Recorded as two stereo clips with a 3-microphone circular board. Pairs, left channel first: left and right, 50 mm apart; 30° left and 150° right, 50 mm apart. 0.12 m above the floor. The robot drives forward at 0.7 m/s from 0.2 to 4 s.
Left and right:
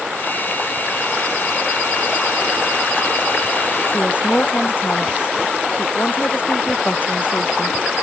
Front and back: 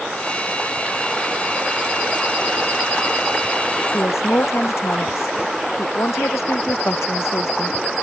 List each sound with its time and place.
3.9 s a woman speaking: 45° left